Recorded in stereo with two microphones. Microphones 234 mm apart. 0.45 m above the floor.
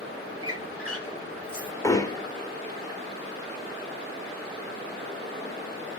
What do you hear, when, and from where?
0.4 s a squeak: 75° right (ahead or behind), 3.5 m
1.8 s hammering: 15° left (ahead or behind), 1.0 m